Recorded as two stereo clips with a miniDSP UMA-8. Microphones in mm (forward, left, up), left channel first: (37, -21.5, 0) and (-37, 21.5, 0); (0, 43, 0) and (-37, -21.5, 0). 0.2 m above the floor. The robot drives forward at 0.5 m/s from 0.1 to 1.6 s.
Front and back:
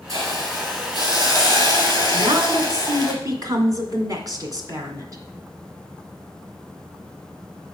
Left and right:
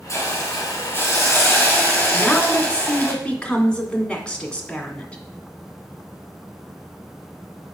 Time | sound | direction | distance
0.1 | a hiss | 105° left | 2.5 m
2.1 | a woman speaking | 135° left | 1.9 m